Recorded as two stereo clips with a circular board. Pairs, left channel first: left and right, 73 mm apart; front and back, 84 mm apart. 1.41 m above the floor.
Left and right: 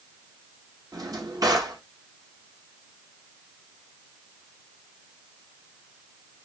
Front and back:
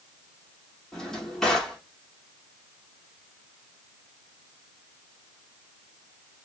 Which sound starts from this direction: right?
A drawer, at 0.9 s.